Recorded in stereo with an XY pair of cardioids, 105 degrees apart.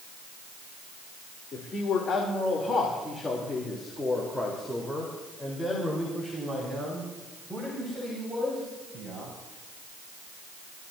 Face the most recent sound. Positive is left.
turn(degrees=-25)